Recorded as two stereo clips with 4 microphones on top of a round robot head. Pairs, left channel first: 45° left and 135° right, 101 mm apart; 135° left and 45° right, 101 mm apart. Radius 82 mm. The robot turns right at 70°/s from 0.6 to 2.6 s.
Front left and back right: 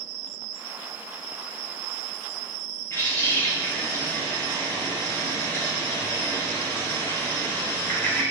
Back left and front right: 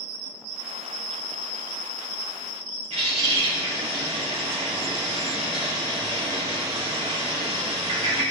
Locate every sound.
2.9 s a bird: 20° right, 4 m